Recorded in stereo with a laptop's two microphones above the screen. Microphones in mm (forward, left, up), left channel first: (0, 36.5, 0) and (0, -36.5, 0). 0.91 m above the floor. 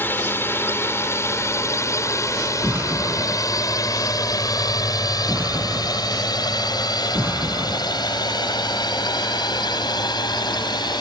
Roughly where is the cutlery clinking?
I don't hear cutlery clinking.